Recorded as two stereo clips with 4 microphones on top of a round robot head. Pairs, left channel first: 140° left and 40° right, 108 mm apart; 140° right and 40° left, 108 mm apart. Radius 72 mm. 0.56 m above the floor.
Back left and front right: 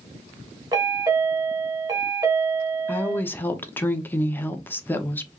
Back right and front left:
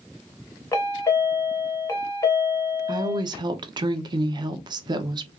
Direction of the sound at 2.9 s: 70° left.